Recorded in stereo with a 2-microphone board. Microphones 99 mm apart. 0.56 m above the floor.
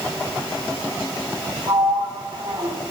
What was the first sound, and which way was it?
A sliding door, 60° right (ahead or behind).